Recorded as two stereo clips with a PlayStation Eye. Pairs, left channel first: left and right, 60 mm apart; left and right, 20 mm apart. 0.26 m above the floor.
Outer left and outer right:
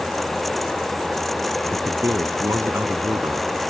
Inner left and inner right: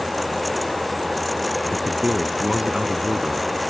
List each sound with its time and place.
1.7 s a man speaking: 65° right (ahead or behind)